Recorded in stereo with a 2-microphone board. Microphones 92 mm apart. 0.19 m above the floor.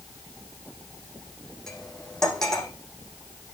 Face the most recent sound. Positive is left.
turn(degrees=5)  # may be behind; listen again after turning